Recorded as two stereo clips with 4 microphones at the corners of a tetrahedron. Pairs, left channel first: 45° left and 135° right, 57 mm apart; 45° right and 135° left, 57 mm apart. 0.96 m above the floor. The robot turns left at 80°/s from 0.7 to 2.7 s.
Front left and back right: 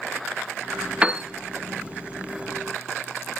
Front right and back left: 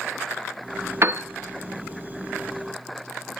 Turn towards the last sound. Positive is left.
turn(degrees=30)